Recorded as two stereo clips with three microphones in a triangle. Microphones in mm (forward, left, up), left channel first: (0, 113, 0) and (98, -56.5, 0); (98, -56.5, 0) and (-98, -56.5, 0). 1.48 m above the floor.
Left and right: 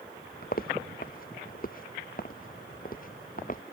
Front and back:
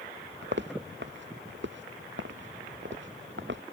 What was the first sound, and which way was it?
Footsteps, 160° left.